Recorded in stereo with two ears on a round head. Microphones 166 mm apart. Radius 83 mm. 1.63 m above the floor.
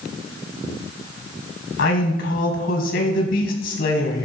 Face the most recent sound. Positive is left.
turn(degrees=70)  # may be behind; listen again after turning